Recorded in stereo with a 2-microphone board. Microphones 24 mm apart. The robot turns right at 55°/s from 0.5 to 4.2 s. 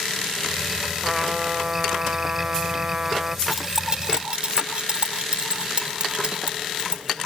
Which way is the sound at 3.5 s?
10° right (ahead or behind).